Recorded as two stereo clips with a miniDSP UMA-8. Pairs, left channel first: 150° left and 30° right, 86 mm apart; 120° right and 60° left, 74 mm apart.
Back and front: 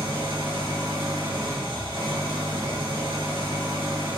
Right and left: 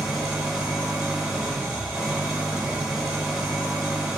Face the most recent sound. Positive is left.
turn(degrees=-20)